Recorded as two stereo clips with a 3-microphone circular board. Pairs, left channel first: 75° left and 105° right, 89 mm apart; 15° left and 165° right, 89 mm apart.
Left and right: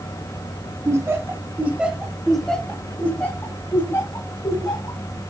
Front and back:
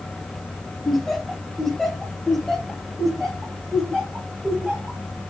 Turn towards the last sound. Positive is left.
turn(degrees=105)